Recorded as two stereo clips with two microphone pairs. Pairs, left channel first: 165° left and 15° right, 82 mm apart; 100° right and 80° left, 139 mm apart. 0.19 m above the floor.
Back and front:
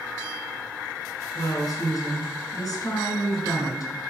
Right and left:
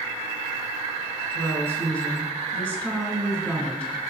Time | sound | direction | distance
1.4 | a woman speaking | straight behind | 1.7 m